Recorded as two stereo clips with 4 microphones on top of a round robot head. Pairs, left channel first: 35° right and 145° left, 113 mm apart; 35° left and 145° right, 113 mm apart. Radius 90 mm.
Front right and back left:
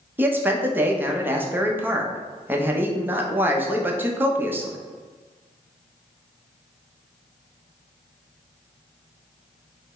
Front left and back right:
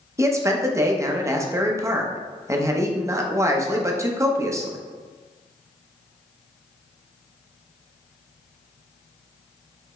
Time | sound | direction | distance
0.2 | a man speaking | 165° right | 0.8 m